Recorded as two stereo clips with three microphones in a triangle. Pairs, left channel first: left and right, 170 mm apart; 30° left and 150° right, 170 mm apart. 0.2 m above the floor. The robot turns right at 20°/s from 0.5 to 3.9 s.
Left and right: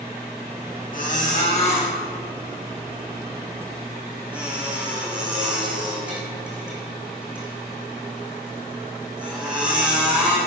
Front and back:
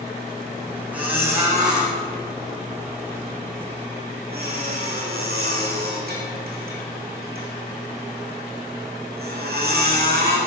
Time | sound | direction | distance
0.9 | a squeak | 130° left | 4.5 m